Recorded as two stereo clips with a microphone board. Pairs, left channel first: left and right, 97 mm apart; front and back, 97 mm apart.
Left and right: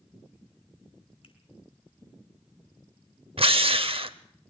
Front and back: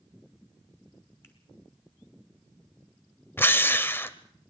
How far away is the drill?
About 0.7 m.